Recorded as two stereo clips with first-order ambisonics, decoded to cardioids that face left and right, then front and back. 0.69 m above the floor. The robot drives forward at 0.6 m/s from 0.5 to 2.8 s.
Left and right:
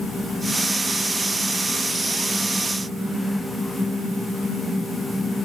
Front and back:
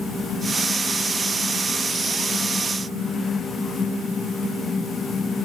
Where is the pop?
I don't hear a pop.